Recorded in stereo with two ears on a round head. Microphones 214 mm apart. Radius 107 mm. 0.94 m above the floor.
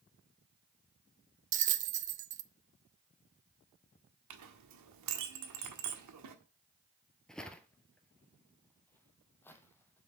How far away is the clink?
About 1.4 m.